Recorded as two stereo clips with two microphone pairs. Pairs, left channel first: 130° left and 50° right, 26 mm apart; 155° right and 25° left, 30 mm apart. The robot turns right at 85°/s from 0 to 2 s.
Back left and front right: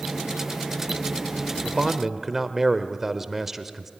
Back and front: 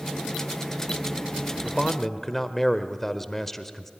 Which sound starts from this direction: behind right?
A man speaking, at 1.6 s.